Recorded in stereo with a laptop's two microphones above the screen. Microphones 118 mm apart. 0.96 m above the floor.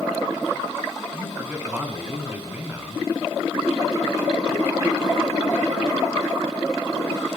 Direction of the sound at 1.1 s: 15° right (ahead or behind).